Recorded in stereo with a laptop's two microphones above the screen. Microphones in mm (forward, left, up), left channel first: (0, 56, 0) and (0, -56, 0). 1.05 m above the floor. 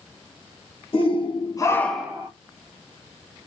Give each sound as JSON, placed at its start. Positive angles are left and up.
{"t": 0.9, "sound": "a shout", "side_deg": 55, "distance_m": 1.2}